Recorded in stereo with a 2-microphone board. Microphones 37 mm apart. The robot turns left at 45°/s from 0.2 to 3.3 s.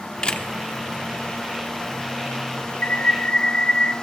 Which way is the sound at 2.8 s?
45° left (ahead or behind).